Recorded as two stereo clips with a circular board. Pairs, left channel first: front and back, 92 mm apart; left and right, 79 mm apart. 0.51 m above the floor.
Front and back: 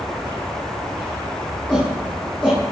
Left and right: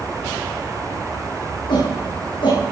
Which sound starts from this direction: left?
A shout, at 1.7 s.